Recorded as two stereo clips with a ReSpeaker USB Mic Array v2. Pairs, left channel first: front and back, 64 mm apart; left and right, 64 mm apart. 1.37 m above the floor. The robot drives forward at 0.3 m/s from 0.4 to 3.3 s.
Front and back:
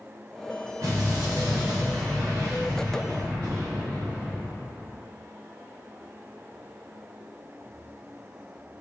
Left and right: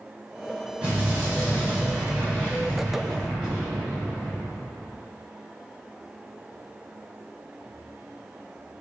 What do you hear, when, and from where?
0.8 s an explosion: 160° right, 0.9 m; by 5.0 s 170° right, 1.6 m